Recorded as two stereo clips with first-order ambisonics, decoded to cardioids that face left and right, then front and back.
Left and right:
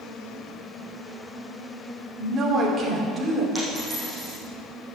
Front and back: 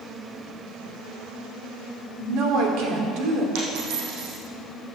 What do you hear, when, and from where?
2.2 s a woman speaking: 160° right, 2.5 m
3.5 s a dropped coin: 175° left, 5 m